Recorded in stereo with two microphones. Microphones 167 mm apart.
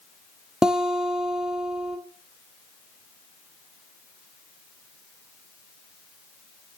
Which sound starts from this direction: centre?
A guitar, at 0.6 s.